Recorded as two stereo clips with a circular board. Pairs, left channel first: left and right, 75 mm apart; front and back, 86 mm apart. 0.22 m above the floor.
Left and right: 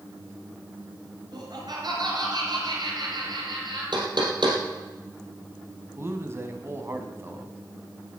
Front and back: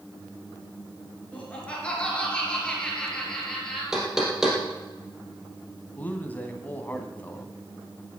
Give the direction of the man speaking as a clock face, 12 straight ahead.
2 o'clock.